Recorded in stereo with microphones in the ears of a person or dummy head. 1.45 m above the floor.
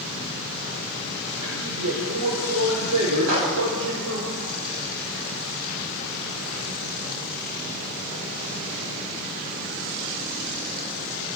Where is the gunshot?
75° right (ahead or behind), 5.5 m.